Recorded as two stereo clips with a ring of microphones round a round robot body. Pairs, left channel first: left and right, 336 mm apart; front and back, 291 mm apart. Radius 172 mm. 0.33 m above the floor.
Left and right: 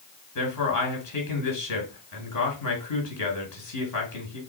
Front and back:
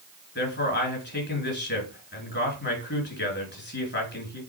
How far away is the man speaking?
About 4 m.